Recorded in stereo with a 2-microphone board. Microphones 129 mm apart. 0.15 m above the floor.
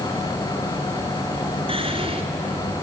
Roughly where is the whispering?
Right.